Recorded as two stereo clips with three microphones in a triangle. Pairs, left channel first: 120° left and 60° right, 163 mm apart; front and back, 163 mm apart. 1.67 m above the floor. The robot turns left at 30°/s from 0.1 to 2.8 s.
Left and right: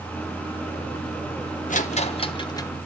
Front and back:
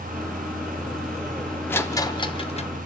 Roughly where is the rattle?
Left.